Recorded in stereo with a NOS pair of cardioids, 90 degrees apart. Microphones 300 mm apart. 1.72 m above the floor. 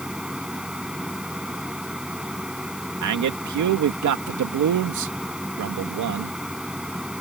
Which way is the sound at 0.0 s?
5° right.